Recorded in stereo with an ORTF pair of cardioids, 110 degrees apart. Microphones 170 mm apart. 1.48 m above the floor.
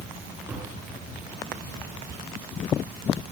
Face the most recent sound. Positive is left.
turn(degrees=-15)